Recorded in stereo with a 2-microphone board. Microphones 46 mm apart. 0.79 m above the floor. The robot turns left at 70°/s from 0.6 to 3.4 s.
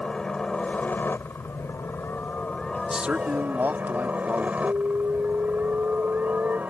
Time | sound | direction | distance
0.0 | a helicopter | 160° left | ?
2.9 | a man speaking | 20° right | ?
4.6 | an alarm | 45° right (ahead or behind) | ?